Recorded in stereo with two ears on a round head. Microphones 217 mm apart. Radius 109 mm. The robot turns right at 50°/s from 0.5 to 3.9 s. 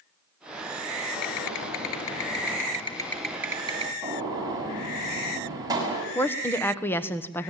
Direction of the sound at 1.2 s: 75° left.